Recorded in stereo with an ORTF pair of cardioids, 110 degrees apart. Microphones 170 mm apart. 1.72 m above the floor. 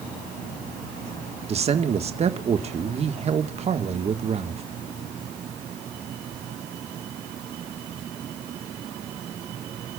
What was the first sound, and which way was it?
A man speaking, 40° right.